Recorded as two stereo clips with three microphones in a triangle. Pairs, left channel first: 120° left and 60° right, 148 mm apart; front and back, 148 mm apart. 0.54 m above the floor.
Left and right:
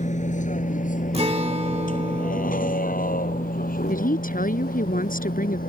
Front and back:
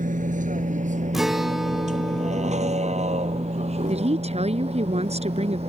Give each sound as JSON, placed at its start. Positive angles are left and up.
{"t": 0.0, "sound": "a vehicle", "azimuth_deg": 155}
{"t": 1.1, "sound": "a guitar", "azimuth_deg": -90}
{"t": 3.9, "sound": "a woman speaking", "azimuth_deg": 135}